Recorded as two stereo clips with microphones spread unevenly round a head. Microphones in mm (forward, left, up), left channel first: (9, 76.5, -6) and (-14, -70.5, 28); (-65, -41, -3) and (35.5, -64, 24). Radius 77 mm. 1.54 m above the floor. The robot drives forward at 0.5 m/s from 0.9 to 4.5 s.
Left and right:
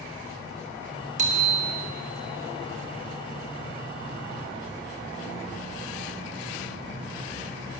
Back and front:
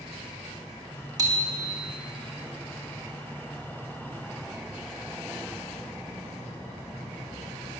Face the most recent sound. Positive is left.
turn(degrees=-105)